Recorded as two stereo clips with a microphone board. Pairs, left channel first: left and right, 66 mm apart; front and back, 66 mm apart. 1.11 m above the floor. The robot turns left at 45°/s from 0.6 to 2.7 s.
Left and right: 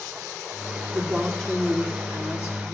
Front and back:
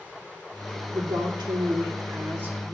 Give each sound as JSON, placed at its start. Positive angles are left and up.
{"t": 0.9, "sound": "a woman speaking", "azimuth_deg": -165, "distance_m": 3.0}